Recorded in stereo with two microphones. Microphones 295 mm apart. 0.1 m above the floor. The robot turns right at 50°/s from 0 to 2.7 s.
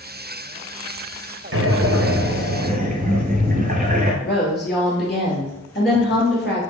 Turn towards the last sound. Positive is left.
turn(degrees=35)  # may be behind; listen again after turning